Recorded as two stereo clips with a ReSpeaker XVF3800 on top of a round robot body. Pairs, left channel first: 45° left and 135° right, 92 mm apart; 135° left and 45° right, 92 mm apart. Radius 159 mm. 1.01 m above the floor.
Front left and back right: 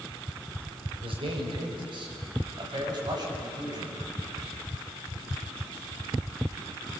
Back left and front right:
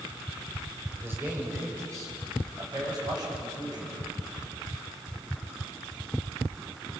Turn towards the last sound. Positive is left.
turn(degrees=-85)